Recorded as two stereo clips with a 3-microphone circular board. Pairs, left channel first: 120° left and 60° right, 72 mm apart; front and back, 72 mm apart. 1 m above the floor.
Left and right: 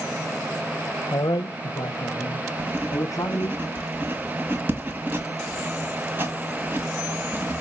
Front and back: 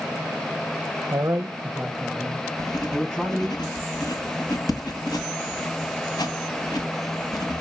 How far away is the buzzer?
I don't hear a buzzer.